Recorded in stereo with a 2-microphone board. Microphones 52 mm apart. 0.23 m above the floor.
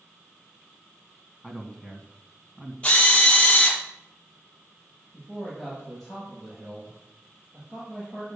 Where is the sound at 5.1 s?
5° right (ahead or behind), 7 m.